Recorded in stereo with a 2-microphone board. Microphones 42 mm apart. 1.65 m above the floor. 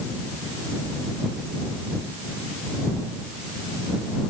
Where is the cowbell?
No cowbell in this recording.